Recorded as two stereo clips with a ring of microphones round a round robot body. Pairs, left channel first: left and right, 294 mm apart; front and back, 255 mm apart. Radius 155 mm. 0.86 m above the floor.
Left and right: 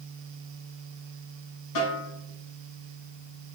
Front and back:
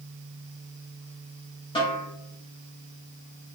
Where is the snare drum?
70° left, 5 m.